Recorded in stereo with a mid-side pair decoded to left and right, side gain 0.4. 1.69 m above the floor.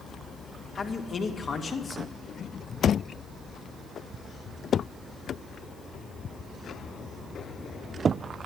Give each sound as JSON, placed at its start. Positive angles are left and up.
{"t": 0.8, "sound": "a man speaking", "azimuth_deg": 45, "distance_m": 2.5}